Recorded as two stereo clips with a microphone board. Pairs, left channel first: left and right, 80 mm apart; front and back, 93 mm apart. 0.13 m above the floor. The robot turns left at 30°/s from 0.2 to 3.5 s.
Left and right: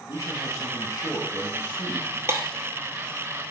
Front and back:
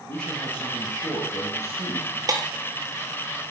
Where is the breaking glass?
140° right, 0.9 m; by 2.5 s 145° right, 0.9 m.